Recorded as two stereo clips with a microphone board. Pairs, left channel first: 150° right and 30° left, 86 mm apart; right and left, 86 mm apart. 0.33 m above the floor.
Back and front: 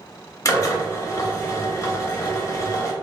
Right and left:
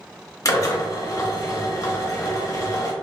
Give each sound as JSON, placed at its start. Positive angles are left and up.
{"t": 0.5, "sound": "a drill", "azimuth_deg": -115, "distance_m": 0.8}